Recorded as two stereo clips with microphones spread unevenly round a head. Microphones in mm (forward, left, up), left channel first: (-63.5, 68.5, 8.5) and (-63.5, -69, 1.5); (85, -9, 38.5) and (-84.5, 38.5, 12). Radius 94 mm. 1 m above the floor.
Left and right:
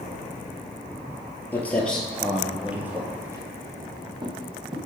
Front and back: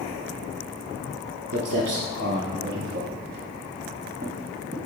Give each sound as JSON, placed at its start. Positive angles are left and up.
{"t": 1.5, "sound": "footsteps", "azimuth_deg": 160, "distance_m": 1.4}